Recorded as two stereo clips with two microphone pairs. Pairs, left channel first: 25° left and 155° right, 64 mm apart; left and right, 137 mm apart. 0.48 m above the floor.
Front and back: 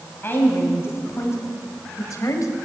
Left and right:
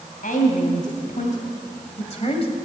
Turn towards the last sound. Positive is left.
turn(degrees=50)